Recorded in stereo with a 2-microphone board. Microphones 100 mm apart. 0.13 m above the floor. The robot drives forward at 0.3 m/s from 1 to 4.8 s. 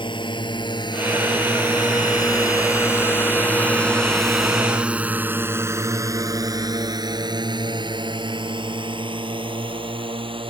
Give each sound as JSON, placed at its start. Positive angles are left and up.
{"t": 0.0, "sound": "a drone", "side_deg": 55}